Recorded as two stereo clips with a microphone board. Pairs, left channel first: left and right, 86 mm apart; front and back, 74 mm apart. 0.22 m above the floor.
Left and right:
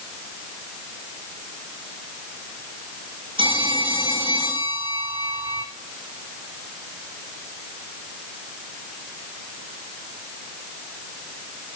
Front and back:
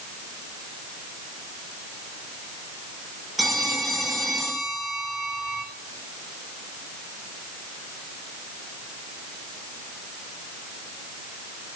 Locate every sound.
3.4 s a phone ringing: 95° right, 8 m